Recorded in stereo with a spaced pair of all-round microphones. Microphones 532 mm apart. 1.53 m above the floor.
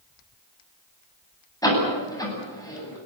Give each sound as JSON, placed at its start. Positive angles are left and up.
{"t": 1.6, "sound": "a door slam", "side_deg": 5, "distance_m": 9.0}